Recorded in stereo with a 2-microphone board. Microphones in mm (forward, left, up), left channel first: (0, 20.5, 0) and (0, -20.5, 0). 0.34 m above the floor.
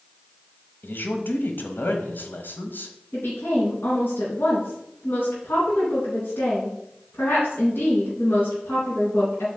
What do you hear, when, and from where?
0.8 s a man speaking: 55° left (ahead or behind), 1.5 m
3.1 s a woman speaking: 65° left (ahead or behind), 4 m